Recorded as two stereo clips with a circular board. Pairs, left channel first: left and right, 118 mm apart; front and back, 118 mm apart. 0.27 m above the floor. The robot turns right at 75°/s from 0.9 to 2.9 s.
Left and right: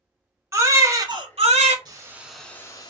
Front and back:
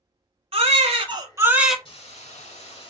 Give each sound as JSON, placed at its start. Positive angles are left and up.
{"t": 0.5, "sound": "a baby crying", "azimuth_deg": -155, "distance_m": 0.8}
{"t": 1.9, "sound": "a hiss", "azimuth_deg": -40, "distance_m": 0.6}